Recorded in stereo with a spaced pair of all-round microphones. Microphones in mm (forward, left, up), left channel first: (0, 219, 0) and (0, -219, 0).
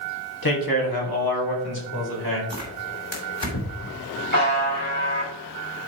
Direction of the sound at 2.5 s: 85° left.